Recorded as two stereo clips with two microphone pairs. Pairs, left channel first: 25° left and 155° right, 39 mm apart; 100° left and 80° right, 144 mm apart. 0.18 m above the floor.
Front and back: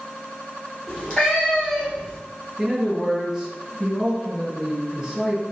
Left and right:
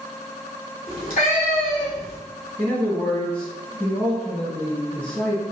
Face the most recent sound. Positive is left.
turn(degrees=160)